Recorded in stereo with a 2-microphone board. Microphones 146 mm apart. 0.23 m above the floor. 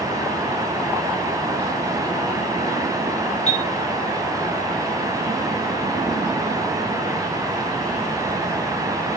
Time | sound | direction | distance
3.5 | a chime | 45° left (ahead or behind) | 2 m